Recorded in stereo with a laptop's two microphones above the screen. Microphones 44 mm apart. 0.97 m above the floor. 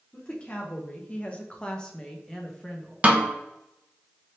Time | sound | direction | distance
0.1 | a woman speaking | 25° left (ahead or behind) | 0.8 m
3.0 | a snare drum | 30° right (ahead or behind) | 0.8 m